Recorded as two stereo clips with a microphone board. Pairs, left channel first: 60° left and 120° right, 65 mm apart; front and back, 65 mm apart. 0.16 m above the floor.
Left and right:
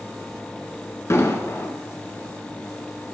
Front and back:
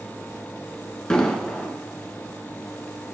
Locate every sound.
1.1 s an explosion: 75° left, 1.5 m